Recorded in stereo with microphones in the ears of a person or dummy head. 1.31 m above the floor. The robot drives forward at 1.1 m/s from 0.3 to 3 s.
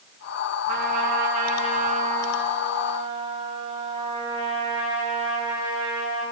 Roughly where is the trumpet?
Right.